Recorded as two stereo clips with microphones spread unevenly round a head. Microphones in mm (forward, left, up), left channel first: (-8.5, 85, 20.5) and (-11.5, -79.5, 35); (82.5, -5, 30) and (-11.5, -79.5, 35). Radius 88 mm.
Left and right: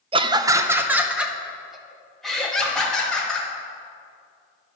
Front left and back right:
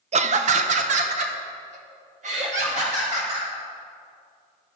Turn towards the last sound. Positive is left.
turn(degrees=175)